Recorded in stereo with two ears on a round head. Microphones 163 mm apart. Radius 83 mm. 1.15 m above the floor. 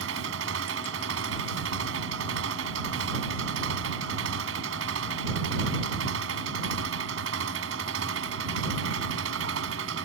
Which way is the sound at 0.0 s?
90° right.